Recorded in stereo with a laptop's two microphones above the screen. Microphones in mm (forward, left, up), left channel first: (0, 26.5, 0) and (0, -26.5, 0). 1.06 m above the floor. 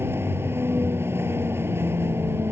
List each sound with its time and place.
0.0 s a vehicle: 45° right (ahead or behind)